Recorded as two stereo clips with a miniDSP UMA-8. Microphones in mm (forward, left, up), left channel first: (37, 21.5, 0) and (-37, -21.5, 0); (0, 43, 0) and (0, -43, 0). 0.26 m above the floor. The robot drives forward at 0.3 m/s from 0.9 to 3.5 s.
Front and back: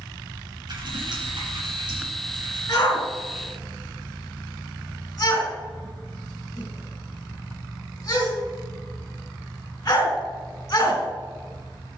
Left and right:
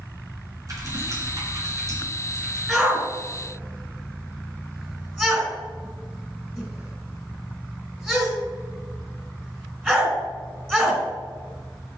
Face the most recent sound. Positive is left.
turn(degrees=-20)